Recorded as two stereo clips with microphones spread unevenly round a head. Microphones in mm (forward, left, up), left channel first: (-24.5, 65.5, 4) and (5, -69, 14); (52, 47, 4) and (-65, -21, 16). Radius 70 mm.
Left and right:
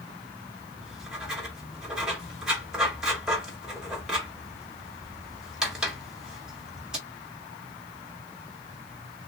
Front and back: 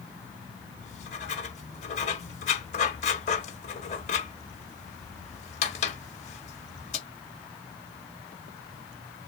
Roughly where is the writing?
Ahead.